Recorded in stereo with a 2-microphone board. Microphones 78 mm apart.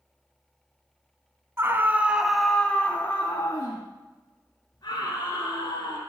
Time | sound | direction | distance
1.6 | a scream | 30° right (ahead or behind) | 1.2 m